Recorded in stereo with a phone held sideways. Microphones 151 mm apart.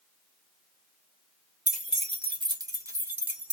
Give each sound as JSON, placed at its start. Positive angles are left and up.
{"t": 1.7, "sound": "keys jangling", "side_deg": -55, "distance_m": 0.9}